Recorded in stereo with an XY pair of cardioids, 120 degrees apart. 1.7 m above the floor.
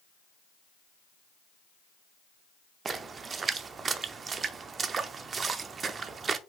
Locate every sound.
2.9 s a splash: 40° right, 0.6 m